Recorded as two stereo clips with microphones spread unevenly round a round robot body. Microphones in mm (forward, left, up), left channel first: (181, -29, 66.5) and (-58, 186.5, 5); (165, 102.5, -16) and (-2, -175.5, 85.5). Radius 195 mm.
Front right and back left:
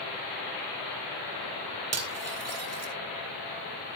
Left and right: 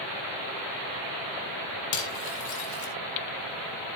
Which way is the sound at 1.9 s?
95° left.